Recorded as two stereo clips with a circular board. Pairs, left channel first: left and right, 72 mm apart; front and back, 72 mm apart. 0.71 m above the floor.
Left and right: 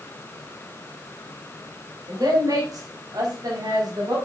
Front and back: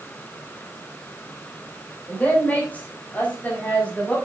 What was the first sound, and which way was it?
A woman speaking, 65° right.